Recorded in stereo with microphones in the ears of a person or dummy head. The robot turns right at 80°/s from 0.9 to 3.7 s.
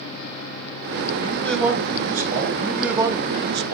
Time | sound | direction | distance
1.2 | a man speaking | 150° left | 3.5 m
2.5 | a man speaking | 160° left | 1.2 m